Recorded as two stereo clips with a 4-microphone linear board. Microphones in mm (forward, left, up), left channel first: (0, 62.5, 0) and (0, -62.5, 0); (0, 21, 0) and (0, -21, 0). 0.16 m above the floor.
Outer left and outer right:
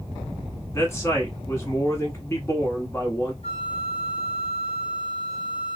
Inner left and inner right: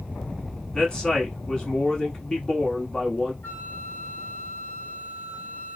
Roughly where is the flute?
Left.